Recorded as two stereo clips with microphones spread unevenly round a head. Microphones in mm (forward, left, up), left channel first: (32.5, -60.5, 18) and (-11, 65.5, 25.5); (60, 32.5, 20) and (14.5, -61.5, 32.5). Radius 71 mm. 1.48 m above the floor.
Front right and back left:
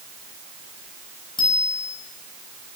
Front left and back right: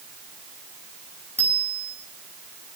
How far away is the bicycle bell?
About 9 m.